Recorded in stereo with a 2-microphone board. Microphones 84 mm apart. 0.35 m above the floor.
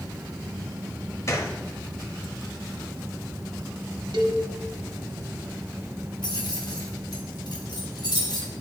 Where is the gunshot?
40° left (ahead or behind), 0.7 m.